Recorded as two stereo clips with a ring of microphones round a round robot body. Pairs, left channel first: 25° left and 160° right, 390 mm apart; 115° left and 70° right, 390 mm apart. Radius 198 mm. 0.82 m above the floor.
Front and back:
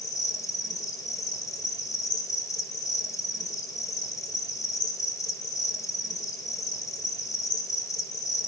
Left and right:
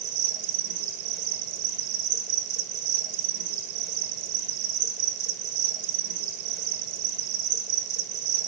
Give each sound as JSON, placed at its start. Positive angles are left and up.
{"t": 0.0, "sound": "an insect", "azimuth_deg": -60, "distance_m": 1.9}